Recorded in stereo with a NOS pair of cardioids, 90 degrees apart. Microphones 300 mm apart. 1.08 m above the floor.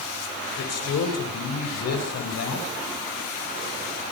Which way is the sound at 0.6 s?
55° left.